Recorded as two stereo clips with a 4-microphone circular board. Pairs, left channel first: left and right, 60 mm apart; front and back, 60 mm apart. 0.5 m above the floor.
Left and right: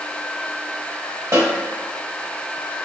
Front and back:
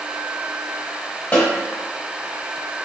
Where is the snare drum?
60° right, 1.0 m.